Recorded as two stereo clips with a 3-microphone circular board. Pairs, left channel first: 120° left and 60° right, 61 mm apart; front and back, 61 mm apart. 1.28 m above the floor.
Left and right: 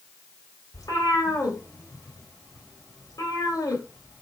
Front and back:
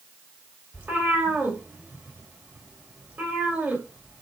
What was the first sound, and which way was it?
A cat meowing, 120° left.